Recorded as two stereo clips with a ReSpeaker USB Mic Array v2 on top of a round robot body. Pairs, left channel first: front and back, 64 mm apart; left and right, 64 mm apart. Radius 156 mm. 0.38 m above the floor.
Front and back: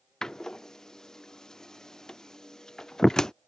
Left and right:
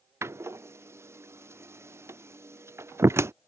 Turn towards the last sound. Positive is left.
turn(degrees=-80)